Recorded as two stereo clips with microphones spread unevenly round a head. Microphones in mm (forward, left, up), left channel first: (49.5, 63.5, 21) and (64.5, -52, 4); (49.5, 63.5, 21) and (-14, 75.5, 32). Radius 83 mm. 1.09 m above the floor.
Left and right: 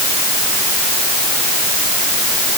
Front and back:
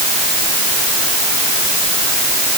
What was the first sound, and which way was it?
Only background noise.